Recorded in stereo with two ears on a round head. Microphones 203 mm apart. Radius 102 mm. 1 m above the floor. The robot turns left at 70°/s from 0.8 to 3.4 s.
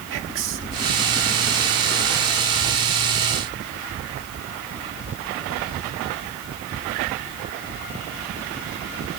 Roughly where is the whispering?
Right.